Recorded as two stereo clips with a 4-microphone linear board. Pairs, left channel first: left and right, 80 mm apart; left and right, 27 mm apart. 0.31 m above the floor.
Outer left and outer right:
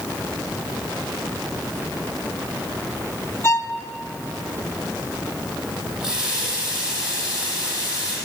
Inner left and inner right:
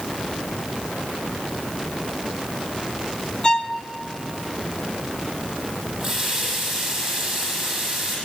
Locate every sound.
3.4 s a violin: 40° left (ahead or behind), 0.6 m
6.0 s a running tap: 10° right (ahead or behind), 8 m